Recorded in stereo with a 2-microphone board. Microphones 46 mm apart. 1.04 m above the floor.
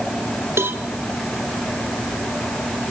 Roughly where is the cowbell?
Right.